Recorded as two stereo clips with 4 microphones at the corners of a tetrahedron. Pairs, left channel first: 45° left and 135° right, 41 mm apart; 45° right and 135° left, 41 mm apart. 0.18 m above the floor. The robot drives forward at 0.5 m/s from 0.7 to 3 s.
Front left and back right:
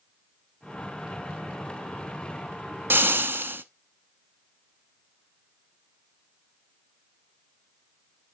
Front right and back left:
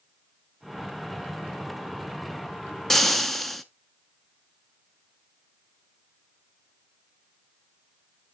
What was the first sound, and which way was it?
Frying, 125° right.